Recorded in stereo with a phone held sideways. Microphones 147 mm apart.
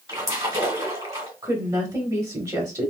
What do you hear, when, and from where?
0.1 s a splash: 25° right (ahead or behind), 1.5 m
1.4 s a woman speaking: 25° right (ahead or behind), 0.8 m